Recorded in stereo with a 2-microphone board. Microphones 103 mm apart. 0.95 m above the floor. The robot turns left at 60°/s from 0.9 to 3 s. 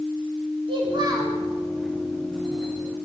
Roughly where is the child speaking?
Right.